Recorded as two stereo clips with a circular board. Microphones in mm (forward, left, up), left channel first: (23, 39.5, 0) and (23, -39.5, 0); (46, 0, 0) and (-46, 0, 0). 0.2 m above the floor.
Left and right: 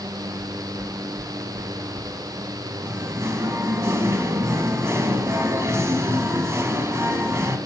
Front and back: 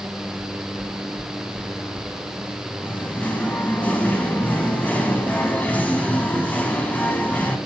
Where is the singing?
65° right, 0.9 m.